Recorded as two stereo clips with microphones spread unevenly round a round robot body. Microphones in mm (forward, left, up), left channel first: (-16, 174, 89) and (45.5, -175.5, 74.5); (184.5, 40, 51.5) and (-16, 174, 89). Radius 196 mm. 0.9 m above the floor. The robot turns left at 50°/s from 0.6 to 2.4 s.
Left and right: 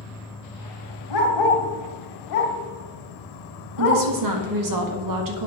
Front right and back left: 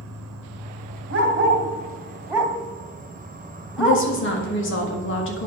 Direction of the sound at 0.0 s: 175° left.